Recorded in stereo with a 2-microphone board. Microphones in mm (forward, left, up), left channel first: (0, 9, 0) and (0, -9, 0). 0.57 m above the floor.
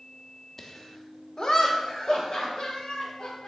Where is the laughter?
20° left (ahead or behind), 1.1 m; by 3.5 s 60° left (ahead or behind), 4 m.